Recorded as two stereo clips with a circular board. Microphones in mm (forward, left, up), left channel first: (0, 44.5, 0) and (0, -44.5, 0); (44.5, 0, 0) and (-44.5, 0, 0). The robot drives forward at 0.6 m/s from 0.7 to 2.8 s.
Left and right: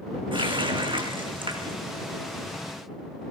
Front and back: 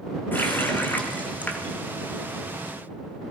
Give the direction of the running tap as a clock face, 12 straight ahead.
2 o'clock.